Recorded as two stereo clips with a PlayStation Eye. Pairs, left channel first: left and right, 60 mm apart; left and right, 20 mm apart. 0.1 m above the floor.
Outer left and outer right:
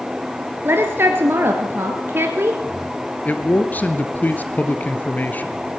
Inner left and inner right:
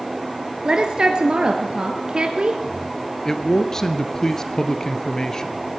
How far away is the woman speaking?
About 1.7 m.